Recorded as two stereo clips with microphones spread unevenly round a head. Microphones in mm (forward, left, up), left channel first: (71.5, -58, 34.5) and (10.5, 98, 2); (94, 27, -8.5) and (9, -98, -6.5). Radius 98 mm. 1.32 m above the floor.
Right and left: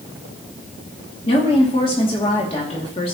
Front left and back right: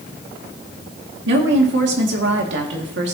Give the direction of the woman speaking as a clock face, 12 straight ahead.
4 o'clock.